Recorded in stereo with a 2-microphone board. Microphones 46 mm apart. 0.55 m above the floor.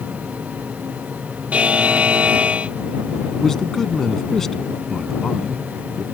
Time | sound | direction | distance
1.5 | a buzzer | 30° right (ahead or behind) | ?
3.3 | a man speaking | 10° left (ahead or behind) | ?